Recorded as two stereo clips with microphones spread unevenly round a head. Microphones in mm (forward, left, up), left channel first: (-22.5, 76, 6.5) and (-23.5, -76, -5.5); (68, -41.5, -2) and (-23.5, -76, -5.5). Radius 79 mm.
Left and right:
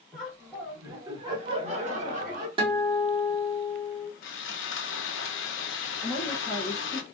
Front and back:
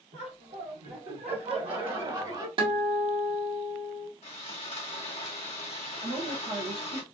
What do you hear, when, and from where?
0.1 s laughter: 175° right, 1.5 m; by 2.5 s 120° right, 1.5 m
2.6 s a guitar: 140° right, 1.3 m
4.2 s sawing: 75° left, 0.6 m
6.0 s a woman speaking: 175° left, 0.8 m